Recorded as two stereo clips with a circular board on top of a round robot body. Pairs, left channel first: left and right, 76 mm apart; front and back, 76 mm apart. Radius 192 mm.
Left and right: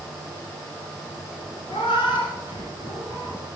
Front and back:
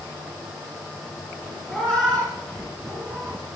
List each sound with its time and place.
1.7 s a cat meowing: 85° left, 2 m